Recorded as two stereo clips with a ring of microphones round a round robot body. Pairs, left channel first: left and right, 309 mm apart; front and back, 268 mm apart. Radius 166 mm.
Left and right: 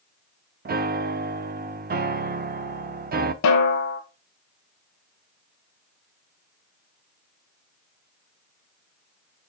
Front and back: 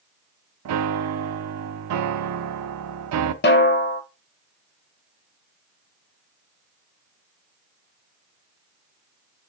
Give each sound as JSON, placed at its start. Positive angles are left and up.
{"t": 0.7, "sound": "a piano", "azimuth_deg": -150, "distance_m": 0.6}
{"t": 3.4, "sound": "a snare drum", "azimuth_deg": 50, "distance_m": 1.2}